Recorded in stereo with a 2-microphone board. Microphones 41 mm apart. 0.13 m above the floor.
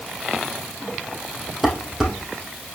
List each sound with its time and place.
1.6 s dishes clattering: centre (ahead or behind), 3 m